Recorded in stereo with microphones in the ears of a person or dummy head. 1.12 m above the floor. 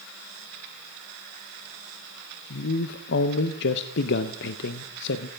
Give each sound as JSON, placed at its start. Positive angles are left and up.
{"t": 2.5, "sound": "a man speaking", "side_deg": 60, "distance_m": 0.6}